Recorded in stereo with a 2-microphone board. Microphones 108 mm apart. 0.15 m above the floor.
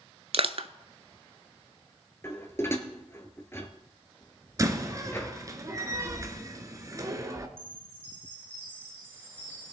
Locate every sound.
0.3 s crushing: 60° right (ahead or behind), 0.6 m
2.2 s dishes clattering: 25° left (ahead or behind), 1.7 m
4.6 s a door slam: 30° right (ahead or behind), 1.3 m
7.6 s a chime: 20° right (ahead or behind), 7.5 m